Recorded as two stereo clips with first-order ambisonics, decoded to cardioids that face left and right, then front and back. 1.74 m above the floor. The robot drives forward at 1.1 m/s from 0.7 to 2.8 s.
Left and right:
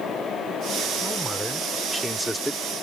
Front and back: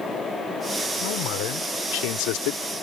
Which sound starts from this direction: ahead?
A man speaking, at 1.0 s.